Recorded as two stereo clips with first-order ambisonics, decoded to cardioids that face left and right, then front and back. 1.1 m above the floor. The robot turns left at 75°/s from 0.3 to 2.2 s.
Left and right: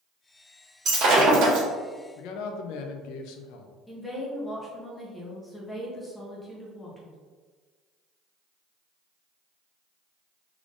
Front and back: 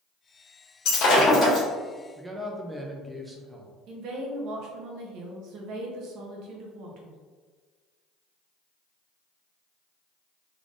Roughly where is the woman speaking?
Behind.